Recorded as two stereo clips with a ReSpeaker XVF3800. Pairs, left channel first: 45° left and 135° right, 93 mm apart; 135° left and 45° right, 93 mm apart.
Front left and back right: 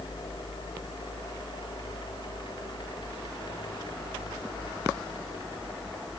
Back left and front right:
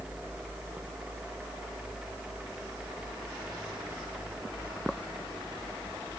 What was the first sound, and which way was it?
Only background noise.